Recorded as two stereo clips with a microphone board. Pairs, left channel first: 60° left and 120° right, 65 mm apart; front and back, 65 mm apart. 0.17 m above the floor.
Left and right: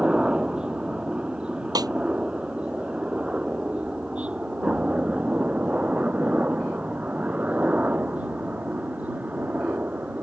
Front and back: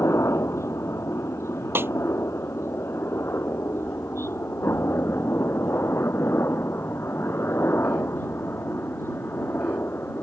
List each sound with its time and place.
0.0 s a helicopter: 45° right; by 10.2 s 55° right
1.8 s a snare drum: 125° right